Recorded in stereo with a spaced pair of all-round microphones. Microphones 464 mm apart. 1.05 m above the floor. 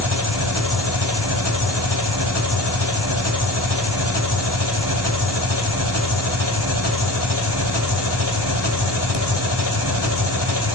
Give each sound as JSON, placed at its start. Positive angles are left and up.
{"t": 0.0, "sound": "an engine running", "side_deg": 55, "distance_m": 2.5}